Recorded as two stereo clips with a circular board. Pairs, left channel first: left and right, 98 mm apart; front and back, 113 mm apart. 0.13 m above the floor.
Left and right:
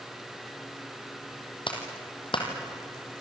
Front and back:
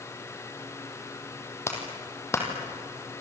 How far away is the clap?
About 4 m.